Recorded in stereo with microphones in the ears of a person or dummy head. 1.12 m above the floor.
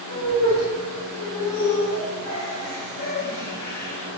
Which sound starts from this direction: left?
Laughter, at 0.1 s.